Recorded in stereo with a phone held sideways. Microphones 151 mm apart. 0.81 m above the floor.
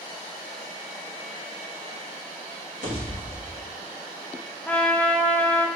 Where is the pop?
60° right (ahead or behind), 3.5 m.